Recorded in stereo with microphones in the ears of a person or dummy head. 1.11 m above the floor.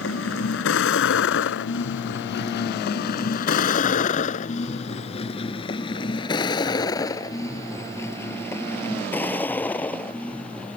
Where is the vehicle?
75° left (ahead or behind); by 10.8 s 10° left (ahead or behind).